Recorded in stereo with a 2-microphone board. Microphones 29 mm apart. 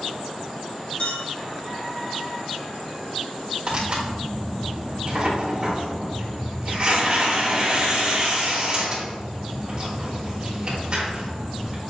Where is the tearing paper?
40° right (ahead or behind), 1.8 m.